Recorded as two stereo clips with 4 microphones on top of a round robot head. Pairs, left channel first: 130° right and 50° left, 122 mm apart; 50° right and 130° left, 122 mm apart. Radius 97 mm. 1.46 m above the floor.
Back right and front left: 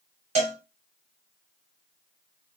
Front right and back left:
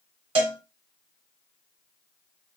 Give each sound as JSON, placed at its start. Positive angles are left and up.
{"t": 0.3, "sound": "a cowbell", "azimuth_deg": 85, "distance_m": 1.3}